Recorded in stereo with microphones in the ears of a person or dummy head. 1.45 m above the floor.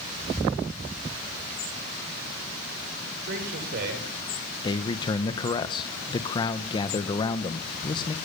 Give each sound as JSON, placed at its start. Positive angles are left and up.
{"t": 3.2, "sound": "a man speaking", "side_deg": -60, "distance_m": 6.0}
{"t": 4.6, "sound": "a man speaking", "side_deg": 25, "distance_m": 1.4}